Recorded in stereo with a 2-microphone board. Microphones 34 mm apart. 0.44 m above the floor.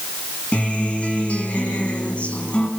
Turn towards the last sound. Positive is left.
turn(degrees=40)  # may be behind; listen again after turning